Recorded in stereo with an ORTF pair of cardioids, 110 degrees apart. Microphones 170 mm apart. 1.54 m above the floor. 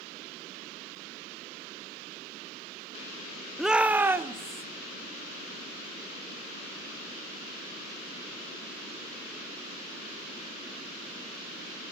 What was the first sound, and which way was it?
A shout, straight ahead.